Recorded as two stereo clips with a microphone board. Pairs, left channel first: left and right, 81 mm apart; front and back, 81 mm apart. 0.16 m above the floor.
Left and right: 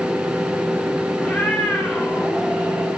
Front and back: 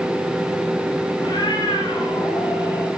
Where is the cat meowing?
10° left, 3.5 m; by 2.9 s 5° right, 3 m.